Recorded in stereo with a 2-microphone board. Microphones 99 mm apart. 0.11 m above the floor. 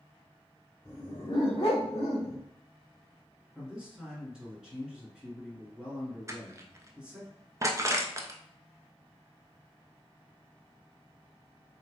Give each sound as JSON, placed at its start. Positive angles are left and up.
{"t": 0.8, "sound": "a dog barking", "side_deg": 50, "distance_m": 1.9}
{"t": 3.5, "sound": "a man speaking", "side_deg": -5, "distance_m": 1.4}
{"t": 6.3, "sound": "crushing", "side_deg": -30, "distance_m": 0.6}